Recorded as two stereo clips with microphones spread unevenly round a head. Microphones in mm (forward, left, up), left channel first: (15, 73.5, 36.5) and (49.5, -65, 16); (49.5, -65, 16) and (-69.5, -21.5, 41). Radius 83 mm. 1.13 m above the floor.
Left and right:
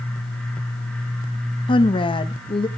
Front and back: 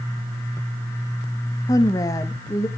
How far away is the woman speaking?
About 1.0 m.